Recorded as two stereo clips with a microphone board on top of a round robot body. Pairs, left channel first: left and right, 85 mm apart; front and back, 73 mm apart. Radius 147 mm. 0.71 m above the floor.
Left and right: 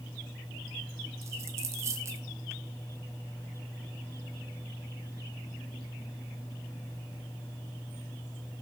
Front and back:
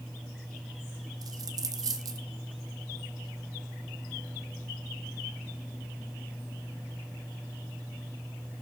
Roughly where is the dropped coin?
Behind right.